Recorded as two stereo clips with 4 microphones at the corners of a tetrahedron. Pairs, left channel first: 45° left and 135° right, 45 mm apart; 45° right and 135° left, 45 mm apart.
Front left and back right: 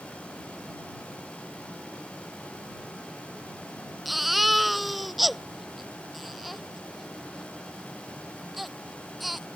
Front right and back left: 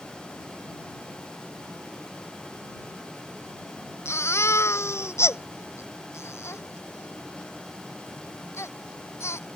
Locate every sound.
4.0 s a baby crying: 45° right